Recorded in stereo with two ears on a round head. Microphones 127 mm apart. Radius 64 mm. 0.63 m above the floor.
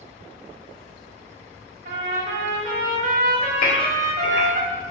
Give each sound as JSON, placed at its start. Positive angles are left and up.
{"t": 1.9, "sound": "a trumpet", "side_deg": -65, "distance_m": 0.9}
{"t": 3.6, "sound": "a gasp", "side_deg": 50, "distance_m": 1.8}